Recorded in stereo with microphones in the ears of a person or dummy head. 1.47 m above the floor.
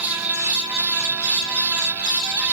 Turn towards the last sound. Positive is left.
No sound to turn to.